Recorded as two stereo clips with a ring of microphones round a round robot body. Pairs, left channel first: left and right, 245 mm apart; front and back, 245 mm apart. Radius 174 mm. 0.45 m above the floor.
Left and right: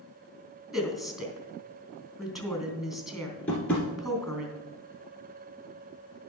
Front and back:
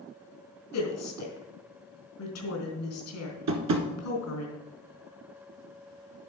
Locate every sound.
0.7 s a woman speaking: straight ahead, 3 m
3.5 s tapping: 175° left, 1.3 m